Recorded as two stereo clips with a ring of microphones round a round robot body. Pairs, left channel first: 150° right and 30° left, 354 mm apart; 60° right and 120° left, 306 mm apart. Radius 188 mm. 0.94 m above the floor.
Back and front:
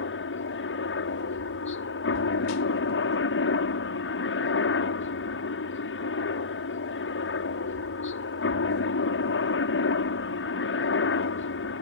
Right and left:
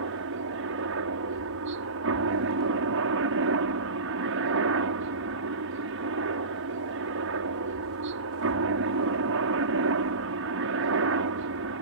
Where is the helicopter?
160° left.